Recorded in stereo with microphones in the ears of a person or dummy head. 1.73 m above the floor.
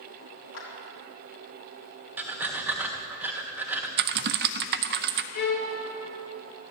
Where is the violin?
60° left (ahead or behind), 2.5 m.